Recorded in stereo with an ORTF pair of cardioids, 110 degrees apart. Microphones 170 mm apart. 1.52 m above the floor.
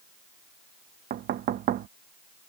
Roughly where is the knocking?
Ahead right.